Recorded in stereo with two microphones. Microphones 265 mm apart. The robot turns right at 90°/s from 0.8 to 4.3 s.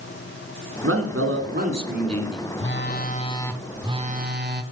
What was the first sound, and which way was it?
A man speaking, 110° right.